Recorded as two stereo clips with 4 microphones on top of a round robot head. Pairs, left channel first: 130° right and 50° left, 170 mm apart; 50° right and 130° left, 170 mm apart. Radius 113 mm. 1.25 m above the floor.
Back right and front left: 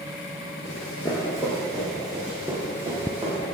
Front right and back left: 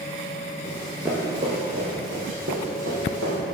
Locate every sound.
0.7 s running footsteps: 115° right, 1.3 m; by 3.4 s 125° left, 3 m